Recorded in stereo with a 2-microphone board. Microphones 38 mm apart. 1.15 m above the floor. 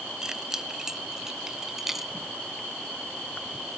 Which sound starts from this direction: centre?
Keys jangling, at 0.2 s.